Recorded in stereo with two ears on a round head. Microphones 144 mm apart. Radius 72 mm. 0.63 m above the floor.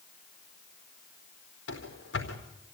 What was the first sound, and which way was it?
Running footsteps, 80° left.